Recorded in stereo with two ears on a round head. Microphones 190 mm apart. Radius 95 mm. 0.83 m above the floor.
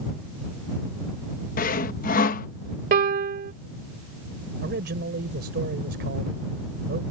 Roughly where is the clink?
No clink in this recording.